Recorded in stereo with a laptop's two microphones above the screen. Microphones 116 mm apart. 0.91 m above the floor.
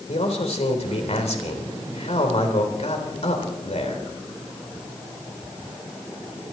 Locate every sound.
0.1 s a man speaking: 70° left (ahead or behind), 3.5 m